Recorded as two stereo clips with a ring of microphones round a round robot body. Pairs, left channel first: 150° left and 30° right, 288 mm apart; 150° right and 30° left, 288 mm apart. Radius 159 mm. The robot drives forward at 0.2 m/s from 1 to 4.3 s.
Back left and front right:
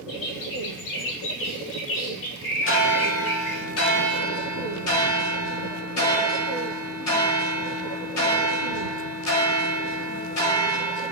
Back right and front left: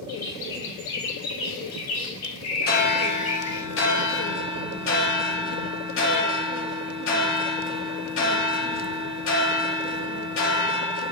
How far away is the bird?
About 1.0 m.